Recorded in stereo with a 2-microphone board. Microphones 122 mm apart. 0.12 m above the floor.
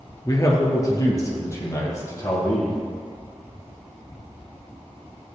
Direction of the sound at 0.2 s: 30° left (ahead or behind).